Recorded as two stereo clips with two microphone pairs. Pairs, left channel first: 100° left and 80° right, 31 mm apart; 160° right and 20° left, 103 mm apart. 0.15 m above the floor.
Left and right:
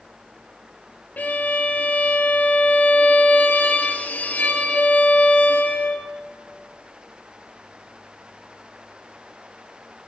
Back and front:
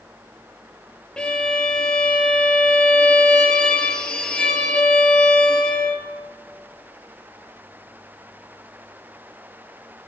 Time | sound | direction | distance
1.2 | a violin | 115° left | 0.9 m